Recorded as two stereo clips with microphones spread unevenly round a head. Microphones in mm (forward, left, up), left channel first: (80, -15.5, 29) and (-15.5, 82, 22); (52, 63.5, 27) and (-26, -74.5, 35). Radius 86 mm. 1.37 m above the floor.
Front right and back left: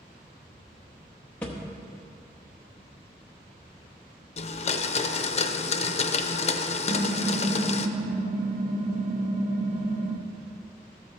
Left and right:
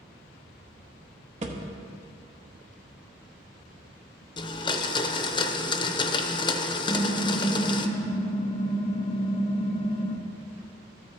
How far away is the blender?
About 0.6 m.